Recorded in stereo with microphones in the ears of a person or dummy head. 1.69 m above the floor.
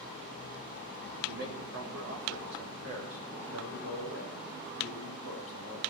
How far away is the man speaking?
About 2.5 m.